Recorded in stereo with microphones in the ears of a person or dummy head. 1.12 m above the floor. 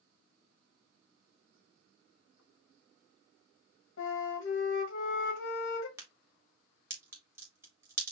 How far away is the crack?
About 1.1 m.